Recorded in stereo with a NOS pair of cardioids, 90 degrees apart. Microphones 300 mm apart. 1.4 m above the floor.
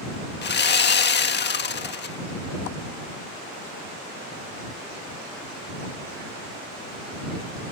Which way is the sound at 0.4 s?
35° left.